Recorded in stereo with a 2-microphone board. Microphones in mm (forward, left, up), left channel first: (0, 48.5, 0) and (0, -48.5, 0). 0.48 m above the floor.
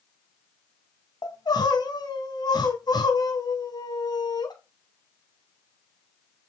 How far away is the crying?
About 2.5 m.